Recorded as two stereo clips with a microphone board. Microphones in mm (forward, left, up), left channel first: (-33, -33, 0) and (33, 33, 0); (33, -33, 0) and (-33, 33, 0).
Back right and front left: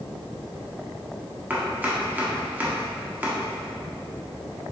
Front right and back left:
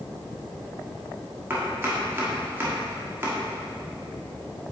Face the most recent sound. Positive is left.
turn(degrees=95)